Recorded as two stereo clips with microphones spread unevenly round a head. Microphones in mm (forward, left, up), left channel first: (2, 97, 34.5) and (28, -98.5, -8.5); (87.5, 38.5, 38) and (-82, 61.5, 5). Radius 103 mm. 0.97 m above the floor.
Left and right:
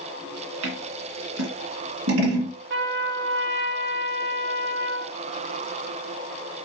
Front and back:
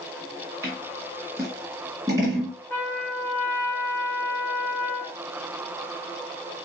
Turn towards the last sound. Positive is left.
turn(degrees=-90)